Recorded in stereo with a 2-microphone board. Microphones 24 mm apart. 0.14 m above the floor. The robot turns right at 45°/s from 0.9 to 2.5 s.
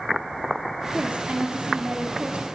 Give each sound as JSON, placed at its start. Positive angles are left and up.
{"t": 0.9, "sound": "a woman speaking", "azimuth_deg": -110, "distance_m": 4.0}